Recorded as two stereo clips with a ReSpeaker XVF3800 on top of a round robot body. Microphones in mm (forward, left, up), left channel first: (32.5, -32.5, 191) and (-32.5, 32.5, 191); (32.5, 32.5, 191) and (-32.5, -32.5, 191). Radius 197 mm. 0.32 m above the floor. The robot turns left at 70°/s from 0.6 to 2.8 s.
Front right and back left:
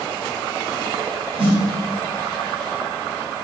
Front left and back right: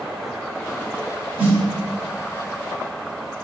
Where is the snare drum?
150° left, 1.6 m; by 1.6 s 135° left, 1.6 m.